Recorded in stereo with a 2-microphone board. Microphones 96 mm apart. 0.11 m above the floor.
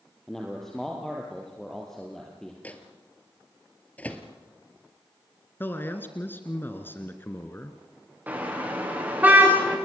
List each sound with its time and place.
0.3 s a man speaking: 5° left (ahead or behind), 3 m
2.6 s a microwave: 15° left (ahead or behind), 1.9 m
5.6 s a man speaking: 25° left (ahead or behind), 1.5 m
8.3 s a car horn: 20° right (ahead or behind), 7.5 m